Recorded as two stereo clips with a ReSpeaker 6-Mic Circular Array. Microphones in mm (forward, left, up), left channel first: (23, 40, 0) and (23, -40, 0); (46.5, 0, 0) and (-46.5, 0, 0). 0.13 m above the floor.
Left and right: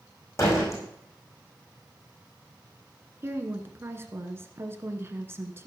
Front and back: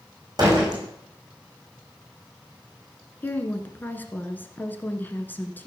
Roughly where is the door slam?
Behind left.